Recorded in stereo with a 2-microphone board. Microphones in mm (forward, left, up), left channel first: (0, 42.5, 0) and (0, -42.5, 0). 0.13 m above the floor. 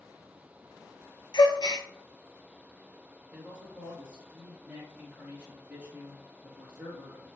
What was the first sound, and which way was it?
A gasp, 55° left (ahead or behind).